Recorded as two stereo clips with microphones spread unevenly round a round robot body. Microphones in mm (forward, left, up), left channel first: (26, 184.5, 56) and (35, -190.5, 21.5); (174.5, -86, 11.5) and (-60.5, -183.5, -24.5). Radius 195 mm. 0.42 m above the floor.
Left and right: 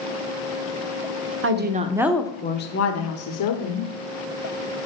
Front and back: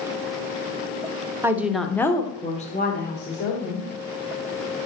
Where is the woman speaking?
95° right, 1.1 m; by 3.9 s 75° left, 1.7 m.